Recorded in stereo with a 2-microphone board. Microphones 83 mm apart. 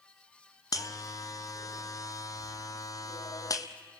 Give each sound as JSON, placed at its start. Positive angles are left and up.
{"t": 0.7, "sound": "a buzzer", "side_deg": 40, "distance_m": 1.0}